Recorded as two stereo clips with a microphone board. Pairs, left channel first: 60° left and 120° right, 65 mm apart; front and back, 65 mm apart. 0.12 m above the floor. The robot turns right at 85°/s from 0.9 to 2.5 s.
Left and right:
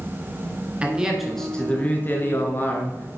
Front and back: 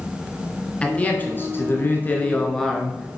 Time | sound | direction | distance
0.8 | a man speaking | 60° right | 1.5 m